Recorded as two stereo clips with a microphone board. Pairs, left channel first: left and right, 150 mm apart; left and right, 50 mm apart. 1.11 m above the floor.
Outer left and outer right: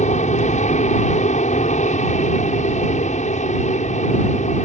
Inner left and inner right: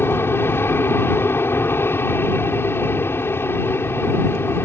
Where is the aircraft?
50° left (ahead or behind).